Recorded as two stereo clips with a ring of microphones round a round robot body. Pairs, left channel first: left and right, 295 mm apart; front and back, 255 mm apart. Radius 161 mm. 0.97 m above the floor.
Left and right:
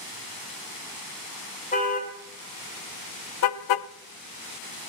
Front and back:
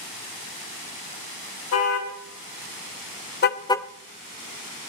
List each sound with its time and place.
1.7 s a car horn: 25° left, 2.5 m; by 3.9 s 95° left, 0.5 m